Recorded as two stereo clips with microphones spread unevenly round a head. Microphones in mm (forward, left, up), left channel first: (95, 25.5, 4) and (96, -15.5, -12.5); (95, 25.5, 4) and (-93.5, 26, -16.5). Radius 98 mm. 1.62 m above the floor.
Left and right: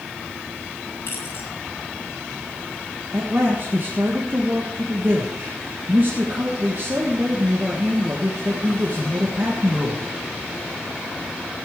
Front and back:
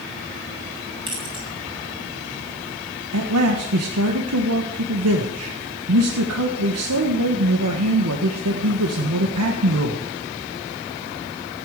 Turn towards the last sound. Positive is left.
turn(degrees=-170)